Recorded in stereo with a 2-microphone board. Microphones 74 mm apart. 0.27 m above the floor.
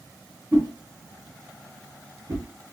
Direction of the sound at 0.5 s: 35° right (ahead or behind).